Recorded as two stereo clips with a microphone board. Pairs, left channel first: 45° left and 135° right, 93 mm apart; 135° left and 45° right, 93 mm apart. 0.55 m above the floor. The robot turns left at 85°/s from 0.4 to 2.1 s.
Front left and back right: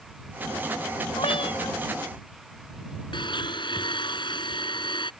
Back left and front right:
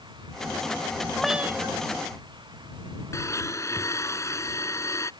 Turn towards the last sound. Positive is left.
turn(degrees=80)